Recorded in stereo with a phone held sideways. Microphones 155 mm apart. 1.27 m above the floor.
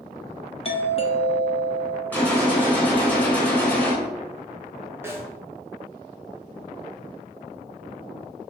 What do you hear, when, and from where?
0.7 s a doorbell: 35° left (ahead or behind), 0.7 m
2.1 s a gunshot: 10° left (ahead or behind), 2 m
5.0 s a snare drum: 15° right (ahead or behind), 0.7 m